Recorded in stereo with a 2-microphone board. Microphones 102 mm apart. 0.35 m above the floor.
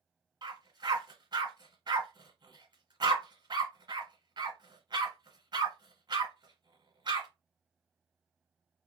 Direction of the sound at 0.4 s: 50° right (ahead or behind).